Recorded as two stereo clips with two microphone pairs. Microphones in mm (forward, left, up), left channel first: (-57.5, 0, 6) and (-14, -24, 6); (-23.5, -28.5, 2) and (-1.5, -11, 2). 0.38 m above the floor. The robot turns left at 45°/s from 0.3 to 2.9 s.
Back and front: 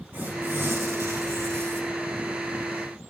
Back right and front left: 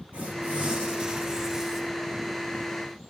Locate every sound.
0.1 s tearing paper: 20° left, 6 m; by 1.8 s 50° right, 6 m